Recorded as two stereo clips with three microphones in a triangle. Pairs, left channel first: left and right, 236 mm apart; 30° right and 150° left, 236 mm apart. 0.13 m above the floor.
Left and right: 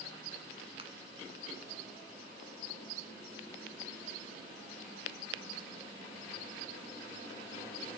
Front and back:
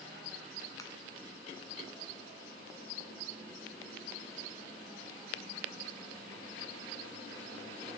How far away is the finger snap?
About 1.2 m.